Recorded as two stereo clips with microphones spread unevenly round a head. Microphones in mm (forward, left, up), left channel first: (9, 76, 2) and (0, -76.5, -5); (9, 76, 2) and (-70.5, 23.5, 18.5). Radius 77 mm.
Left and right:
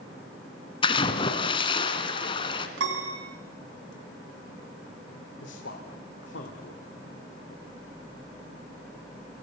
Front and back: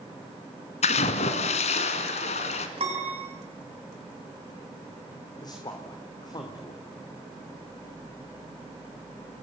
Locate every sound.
0.8 s a splash: 30° left, 2 m
2.8 s a piano: 90° right, 6.5 m
5.4 s a man speaking: 75° left, 3 m